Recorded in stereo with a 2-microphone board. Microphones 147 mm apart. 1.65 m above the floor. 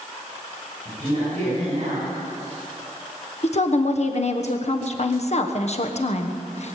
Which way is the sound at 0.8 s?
55° right (ahead or behind).